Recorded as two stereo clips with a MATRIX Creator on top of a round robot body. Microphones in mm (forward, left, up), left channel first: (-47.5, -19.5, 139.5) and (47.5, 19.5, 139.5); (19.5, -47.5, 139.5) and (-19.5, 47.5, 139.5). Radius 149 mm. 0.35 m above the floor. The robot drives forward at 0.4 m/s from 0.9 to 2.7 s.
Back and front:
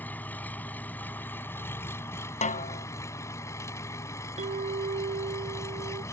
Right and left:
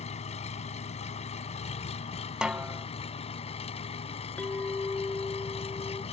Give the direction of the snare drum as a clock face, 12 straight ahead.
5 o'clock.